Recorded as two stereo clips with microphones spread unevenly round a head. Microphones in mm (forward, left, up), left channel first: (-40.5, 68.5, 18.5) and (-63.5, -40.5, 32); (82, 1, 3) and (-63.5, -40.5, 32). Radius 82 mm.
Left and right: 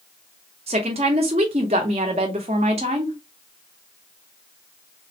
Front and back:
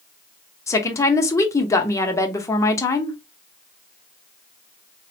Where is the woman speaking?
60° right, 0.7 m.